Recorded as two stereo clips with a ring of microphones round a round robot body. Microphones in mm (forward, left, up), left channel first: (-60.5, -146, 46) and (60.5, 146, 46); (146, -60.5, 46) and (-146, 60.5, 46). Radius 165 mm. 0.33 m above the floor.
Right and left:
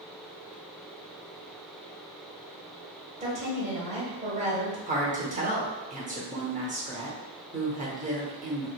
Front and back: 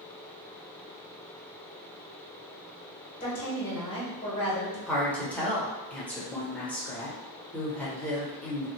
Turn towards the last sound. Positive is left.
turn(degrees=55)